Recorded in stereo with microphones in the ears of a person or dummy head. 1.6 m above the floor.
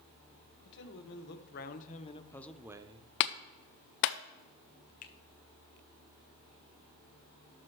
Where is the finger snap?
45° left (ahead or behind), 0.8 m.